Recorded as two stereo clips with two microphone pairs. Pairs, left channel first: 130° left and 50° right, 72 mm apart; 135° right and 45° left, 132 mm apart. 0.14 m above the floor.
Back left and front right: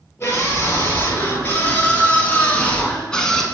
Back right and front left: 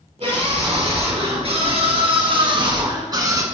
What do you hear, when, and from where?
0.2 s a scream: 75° left, 2.5 m; by 3.5 s 50° left, 1.1 m